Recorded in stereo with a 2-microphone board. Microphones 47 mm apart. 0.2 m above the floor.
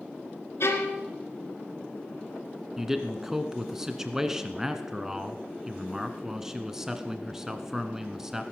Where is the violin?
65° left (ahead or behind), 2.5 m.